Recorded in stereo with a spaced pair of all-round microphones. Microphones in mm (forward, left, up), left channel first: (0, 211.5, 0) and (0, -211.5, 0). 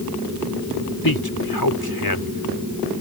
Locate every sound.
1.0 s a man speaking: 60° left (ahead or behind)